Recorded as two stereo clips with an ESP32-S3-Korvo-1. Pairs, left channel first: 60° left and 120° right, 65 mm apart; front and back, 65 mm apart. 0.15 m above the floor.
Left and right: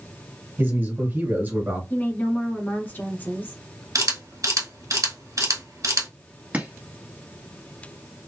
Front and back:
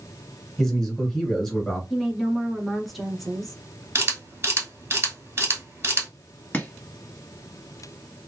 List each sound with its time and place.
0.6 s a man speaking: 85° right, 1.9 m
1.9 s a woman speaking: 85° left, 1.3 m
4.0 s a camera shutter: 135° right, 1.5 m
6.5 s chopping: 60° right, 1.5 m